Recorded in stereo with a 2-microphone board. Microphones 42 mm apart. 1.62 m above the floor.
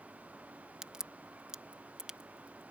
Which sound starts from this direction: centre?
A crack, at 0.8 s.